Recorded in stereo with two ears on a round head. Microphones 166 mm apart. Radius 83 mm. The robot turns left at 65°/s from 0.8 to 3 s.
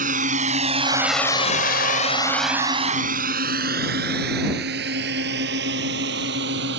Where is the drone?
50° right (ahead or behind); by 6.8 s 65° right (ahead or behind).